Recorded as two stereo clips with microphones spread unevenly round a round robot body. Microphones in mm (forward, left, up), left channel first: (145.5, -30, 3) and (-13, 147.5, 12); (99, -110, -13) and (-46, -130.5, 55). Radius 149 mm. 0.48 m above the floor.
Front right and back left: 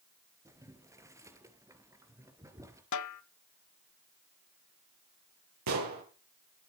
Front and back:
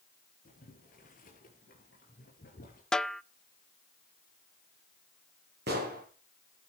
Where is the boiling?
55° left, 3 m.